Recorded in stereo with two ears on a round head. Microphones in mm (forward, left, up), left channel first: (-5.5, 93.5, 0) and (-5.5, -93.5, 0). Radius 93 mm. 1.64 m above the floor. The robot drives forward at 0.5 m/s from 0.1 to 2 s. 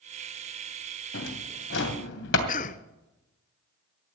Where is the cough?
40° left (ahead or behind), 0.5 m.